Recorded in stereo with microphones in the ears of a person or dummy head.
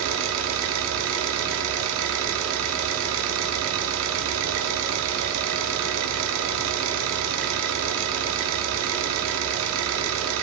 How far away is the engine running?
About 2.5 m.